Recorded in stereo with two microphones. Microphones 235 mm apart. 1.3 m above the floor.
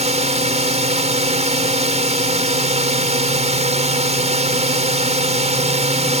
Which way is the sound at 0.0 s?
30° right (ahead or behind).